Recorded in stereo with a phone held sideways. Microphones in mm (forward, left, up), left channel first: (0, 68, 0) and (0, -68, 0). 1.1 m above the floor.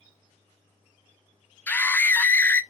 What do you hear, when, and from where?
1.7 s a scream: 15° left (ahead or behind), 0.5 m